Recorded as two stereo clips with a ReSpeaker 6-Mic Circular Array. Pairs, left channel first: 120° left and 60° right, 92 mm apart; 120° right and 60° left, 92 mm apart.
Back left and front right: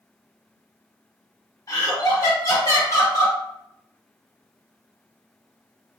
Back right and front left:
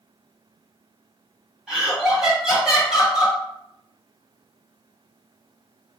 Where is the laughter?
140° left, 1.3 m.